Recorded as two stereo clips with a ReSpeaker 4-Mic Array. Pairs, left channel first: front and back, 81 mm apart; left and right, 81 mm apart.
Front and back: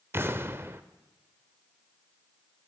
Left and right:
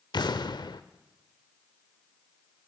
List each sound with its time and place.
0.1 s an explosion: 120° left, 0.8 m